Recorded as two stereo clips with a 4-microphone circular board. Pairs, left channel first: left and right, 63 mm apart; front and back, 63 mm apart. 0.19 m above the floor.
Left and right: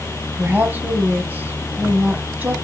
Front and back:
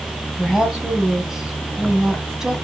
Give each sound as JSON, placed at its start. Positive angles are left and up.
{"t": 0.4, "sound": "a woman speaking", "azimuth_deg": -105, "distance_m": 1.4}